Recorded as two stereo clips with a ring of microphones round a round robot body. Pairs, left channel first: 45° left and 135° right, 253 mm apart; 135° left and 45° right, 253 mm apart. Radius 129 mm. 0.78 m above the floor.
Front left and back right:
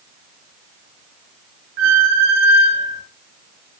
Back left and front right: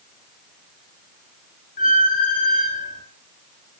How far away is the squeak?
About 1.7 m.